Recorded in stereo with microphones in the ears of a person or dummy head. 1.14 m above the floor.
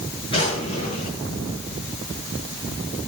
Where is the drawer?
25° left (ahead or behind), 8.5 m.